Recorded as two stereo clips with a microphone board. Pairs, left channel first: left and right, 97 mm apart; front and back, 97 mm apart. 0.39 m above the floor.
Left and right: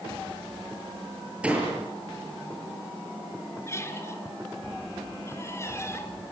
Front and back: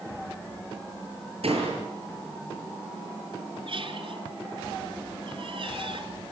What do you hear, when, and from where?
1.4 s a door slam: 170° right, 7 m
3.7 s a squeak: 150° left, 1.7 m